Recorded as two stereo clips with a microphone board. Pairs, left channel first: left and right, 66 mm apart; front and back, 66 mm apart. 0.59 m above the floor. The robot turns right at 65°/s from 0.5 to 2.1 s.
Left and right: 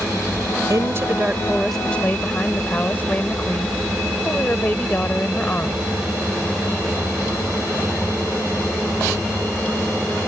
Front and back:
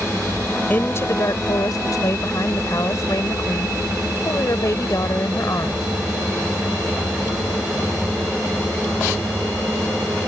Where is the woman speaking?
65° right; by 5.9 s 30° left.